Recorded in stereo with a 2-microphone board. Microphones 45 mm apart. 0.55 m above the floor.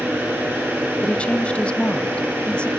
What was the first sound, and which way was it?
An engine running, 75° right (ahead or behind).